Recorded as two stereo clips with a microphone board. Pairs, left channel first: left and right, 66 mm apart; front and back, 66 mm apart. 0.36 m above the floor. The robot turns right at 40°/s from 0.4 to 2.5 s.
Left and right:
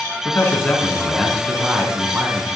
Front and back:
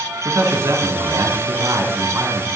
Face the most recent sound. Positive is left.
turn(degrees=-135)